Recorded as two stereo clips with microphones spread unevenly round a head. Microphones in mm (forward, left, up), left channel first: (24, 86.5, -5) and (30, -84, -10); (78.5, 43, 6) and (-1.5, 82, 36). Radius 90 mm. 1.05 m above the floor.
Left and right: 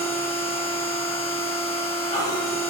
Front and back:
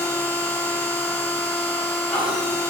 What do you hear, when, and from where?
0.0 s a machine running: 40° left, 1.5 m